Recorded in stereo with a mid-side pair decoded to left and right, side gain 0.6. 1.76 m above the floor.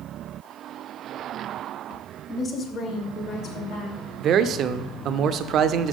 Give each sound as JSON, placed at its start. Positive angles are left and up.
{"t": 2.3, "sound": "a woman speaking", "azimuth_deg": 20, "distance_m": 1.5}
{"t": 4.2, "sound": "a man speaking", "azimuth_deg": -50, "distance_m": 0.5}